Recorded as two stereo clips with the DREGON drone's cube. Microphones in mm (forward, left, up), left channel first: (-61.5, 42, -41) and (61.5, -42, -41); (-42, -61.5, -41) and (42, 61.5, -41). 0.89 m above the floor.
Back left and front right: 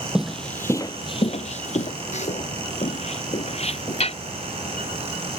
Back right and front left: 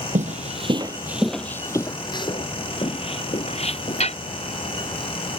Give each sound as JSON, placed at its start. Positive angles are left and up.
{"t": 0.1, "sound": "footsteps", "azimuth_deg": 50}